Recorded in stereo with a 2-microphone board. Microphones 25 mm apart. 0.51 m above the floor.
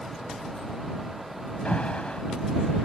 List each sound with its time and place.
1.6 s an alarm: 55° left (ahead or behind)